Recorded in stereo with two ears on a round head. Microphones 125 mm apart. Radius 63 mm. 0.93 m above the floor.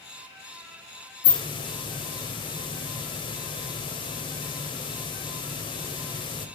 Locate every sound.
1.2 s a hiss: 35° left (ahead or behind), 2.5 m